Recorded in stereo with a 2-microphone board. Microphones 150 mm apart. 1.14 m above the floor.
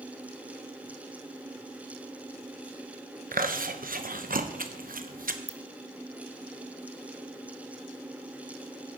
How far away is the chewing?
About 0.8 m.